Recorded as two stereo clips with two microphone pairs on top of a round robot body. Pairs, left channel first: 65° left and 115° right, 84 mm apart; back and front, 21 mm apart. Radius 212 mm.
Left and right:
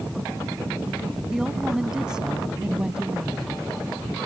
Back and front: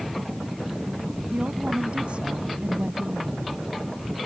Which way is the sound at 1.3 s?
30° right.